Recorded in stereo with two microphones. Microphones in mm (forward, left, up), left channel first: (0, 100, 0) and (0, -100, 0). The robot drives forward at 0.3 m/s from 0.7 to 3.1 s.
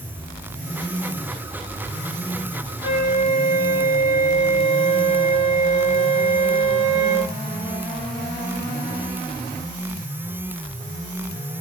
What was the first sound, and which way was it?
A flute, 40° left (ahead or behind).